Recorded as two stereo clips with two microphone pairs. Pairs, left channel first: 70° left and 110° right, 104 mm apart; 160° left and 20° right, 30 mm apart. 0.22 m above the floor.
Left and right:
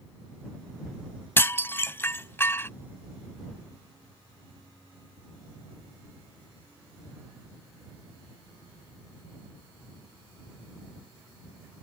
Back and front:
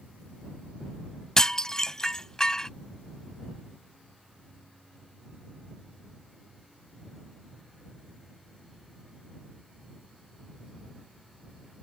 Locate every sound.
1.4 s dishes clattering: 115° left